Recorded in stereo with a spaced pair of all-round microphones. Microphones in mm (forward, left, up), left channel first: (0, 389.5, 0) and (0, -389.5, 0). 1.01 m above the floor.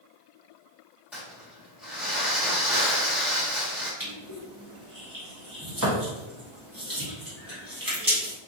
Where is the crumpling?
Centre (ahead or behind), 1.5 m.